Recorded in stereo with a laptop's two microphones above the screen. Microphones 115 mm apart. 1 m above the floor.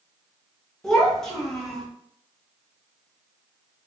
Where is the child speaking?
5° left (ahead or behind), 0.9 m.